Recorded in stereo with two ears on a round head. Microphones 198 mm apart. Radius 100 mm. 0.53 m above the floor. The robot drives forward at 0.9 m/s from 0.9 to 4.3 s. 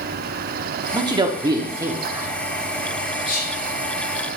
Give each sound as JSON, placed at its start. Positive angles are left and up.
{"t": 0.9, "sound": "a man speaking", "side_deg": -20, "distance_m": 0.7}
{"t": 3.2, "sound": "whispering", "side_deg": 45, "distance_m": 3.0}